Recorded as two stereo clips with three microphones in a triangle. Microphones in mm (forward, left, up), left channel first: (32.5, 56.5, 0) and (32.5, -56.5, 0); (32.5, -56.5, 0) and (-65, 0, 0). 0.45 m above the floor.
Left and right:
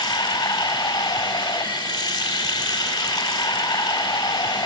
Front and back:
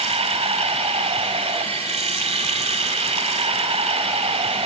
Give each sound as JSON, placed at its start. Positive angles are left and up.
{"t": 0.0, "sound": "running water", "azimuth_deg": 130, "distance_m": 1.9}